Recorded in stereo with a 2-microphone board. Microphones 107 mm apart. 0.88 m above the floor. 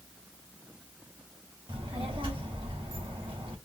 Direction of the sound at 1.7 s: 55° right (ahead or behind).